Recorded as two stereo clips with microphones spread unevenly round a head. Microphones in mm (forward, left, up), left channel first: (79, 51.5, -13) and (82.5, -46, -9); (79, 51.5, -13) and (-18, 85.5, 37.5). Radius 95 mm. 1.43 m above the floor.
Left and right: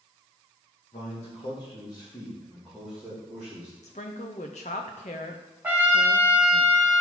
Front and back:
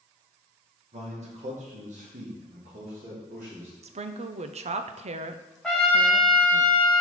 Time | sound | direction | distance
0.9 | a man speaking | 140° left | 2 m
3.8 | a woman speaking | 140° left | 0.6 m
5.6 | a trumpet | 145° right | 1.0 m